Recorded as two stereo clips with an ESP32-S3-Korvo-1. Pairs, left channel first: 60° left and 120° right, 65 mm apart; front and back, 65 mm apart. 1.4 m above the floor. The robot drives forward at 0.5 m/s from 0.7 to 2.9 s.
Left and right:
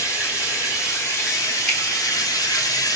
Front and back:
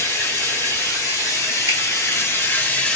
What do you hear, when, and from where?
0.0 s running water: 25° left, 1.4 m; by 3.0 s 70° left, 0.6 m
1.7 s a finger snap: 140° left, 1.1 m